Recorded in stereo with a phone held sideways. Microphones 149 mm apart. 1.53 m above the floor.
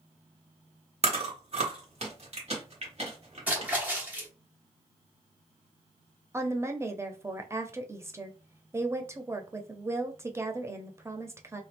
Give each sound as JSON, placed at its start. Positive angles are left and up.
{"t": 1.0, "sound": "chewing", "side_deg": -45, "distance_m": 1.6}
{"t": 3.5, "sound": "a splash", "side_deg": -10, "distance_m": 1.2}
{"t": 6.3, "sound": "a woman speaking", "side_deg": -20, "distance_m": 0.6}